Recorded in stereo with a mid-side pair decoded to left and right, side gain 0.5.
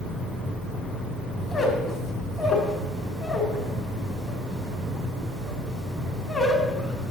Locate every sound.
1.4 s a squeak: 35° left, 2.5 m